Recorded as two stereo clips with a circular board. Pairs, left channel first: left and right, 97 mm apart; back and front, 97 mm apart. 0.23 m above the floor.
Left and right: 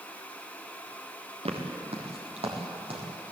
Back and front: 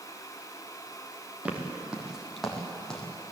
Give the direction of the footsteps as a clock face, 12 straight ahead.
3 o'clock.